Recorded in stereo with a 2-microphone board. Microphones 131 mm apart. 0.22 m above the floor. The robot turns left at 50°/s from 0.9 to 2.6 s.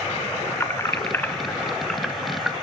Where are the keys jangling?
20° left (ahead or behind), 0.6 m; by 2.5 s 10° right (ahead or behind), 0.6 m.